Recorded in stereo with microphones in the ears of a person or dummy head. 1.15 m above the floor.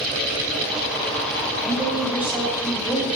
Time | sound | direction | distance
1.6 | a woman speaking | 5° right (ahead or behind) | 4.5 m